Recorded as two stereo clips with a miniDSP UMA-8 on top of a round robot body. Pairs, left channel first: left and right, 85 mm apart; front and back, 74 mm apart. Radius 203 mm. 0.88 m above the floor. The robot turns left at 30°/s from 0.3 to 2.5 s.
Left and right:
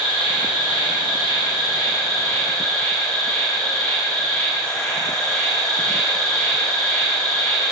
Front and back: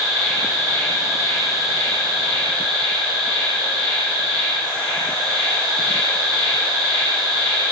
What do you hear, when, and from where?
0.0 s an insect: 85° left, 1.7 m; by 7.7 s 20° left, 1.7 m